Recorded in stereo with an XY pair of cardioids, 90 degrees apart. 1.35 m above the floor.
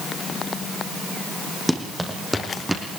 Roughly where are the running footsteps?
Ahead.